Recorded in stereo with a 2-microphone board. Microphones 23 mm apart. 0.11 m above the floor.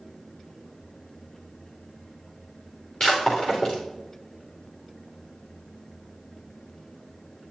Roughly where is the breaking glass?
Left.